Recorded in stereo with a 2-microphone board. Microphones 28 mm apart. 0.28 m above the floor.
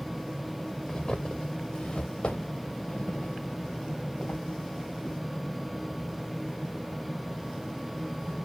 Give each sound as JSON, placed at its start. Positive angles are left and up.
{"t": 0.9, "sound": "footsteps", "side_deg": 35, "distance_m": 1.8}